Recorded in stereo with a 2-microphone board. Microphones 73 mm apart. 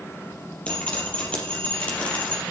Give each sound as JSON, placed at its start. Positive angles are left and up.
{"t": 0.7, "sound": "dripping", "side_deg": 15, "distance_m": 4.5}